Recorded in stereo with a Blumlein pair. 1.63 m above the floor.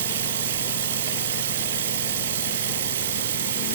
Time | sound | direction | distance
0.0 | running water | 60° right | 1.0 m